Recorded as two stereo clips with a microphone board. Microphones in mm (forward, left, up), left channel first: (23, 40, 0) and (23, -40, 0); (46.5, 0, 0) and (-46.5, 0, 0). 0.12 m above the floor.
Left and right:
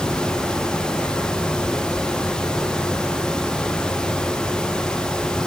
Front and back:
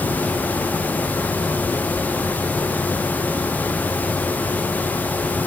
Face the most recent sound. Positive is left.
No sound to turn to.